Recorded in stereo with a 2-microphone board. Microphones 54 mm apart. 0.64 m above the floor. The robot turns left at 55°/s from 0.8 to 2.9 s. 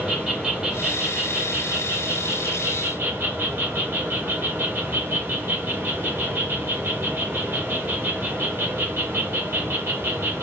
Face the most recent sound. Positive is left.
turn(degrees=-130)